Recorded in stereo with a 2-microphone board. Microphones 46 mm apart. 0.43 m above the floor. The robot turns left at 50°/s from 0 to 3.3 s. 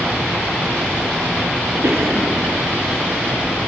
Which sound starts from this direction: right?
A cough, at 1.8 s.